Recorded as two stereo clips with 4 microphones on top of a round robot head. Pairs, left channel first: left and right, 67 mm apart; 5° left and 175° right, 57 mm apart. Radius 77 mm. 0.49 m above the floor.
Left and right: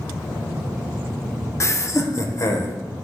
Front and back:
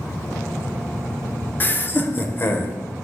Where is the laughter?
55° left, 1.2 m; by 2.8 s 50° left, 2 m.